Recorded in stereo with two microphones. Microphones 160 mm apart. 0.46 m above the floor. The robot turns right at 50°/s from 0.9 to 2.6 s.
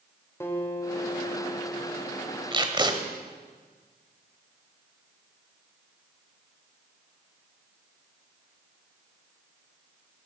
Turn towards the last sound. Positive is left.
turn(degrees=-30)  # may be behind; listen again after turning